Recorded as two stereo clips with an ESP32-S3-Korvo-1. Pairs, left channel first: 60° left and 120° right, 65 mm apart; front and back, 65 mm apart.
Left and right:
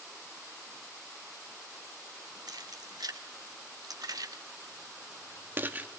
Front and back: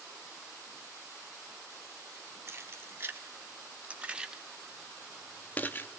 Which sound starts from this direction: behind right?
Keys jangling, at 2.5 s.